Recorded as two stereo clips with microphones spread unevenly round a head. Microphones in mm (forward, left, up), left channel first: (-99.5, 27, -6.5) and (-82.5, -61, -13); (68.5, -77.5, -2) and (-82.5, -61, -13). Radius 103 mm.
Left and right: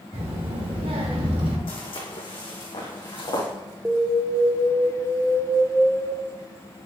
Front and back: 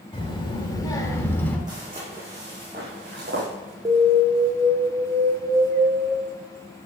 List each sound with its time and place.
0.1 s a child speaking: 60° right, 3 m; by 1.6 s 85° right, 2.5 m
1.7 s footsteps: 100° left, 3 m; by 3.5 s 130° left, 5 m
3.9 s an alarm: 145° right, 1.2 m